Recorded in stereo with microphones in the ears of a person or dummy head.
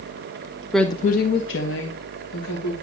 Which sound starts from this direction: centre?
A woman speaking, at 0.7 s.